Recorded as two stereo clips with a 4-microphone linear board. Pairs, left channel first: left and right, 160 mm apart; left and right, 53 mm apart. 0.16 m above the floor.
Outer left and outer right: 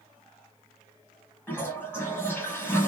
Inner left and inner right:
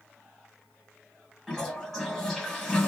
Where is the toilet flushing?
15° left (ahead or behind), 1.9 m.